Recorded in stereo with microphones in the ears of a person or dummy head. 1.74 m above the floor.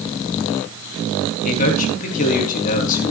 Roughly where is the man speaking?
Left.